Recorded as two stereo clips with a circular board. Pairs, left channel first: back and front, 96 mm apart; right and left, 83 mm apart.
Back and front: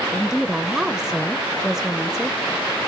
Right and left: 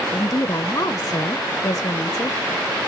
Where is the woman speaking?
85° right, 0.6 m.